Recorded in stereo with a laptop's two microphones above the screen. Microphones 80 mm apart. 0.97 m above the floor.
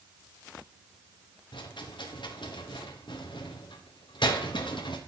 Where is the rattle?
75° left (ahead or behind), 0.9 m.